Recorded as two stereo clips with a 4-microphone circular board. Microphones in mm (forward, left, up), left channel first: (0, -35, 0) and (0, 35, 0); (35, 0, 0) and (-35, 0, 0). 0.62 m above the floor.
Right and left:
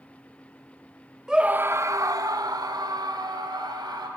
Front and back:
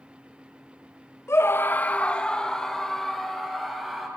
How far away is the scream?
About 1.0 m.